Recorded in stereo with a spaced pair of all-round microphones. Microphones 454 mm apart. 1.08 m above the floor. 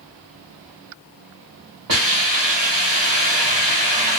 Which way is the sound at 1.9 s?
65° right (ahead or behind).